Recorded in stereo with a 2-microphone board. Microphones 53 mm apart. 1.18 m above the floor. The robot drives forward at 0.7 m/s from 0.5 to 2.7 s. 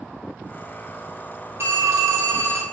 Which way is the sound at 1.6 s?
55° right (ahead or behind).